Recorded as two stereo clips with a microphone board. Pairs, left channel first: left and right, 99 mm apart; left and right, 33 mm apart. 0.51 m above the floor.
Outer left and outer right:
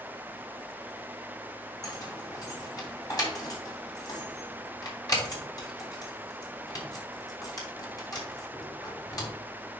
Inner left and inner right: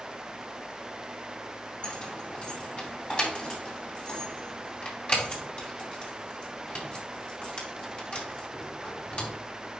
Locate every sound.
1.8 s keys jangling: 40° left (ahead or behind), 2.5 m